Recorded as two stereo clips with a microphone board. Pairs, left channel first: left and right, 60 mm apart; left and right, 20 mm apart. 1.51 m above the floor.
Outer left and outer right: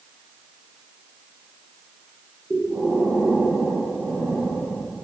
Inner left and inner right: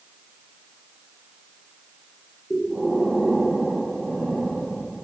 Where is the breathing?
25° right (ahead or behind), 2 m.